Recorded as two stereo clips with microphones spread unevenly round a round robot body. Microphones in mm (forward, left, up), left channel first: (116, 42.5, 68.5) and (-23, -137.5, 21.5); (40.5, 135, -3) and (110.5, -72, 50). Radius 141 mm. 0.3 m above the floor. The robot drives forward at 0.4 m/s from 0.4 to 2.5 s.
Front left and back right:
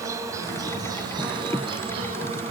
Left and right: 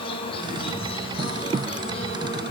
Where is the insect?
165° left, 1.4 m; by 2.5 s 170° left, 2 m.